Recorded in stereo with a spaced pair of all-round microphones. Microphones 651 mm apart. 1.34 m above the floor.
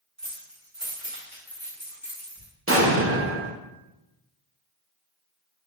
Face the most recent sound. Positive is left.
turn(degrees=-20)  # may be behind; listen again after turning